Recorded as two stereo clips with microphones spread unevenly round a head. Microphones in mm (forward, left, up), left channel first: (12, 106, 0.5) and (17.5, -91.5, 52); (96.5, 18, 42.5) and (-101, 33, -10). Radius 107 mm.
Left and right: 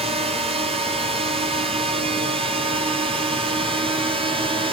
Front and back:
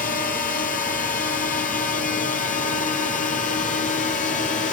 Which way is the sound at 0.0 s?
30° right.